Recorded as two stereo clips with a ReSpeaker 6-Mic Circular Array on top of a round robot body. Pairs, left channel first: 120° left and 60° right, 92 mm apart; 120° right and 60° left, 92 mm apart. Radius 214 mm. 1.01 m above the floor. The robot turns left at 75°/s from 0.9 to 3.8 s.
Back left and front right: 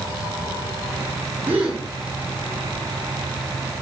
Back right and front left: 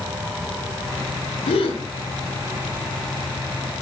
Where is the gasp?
125° right, 1.5 m; by 1.8 s 155° right, 1.5 m.